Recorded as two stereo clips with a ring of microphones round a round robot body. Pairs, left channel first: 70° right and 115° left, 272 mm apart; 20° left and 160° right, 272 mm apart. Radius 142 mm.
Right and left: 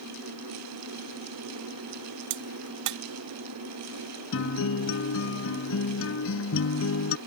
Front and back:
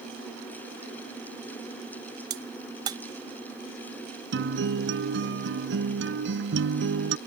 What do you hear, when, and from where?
2.3 s a crack: 125° left
4.3 s a guitar: 110° right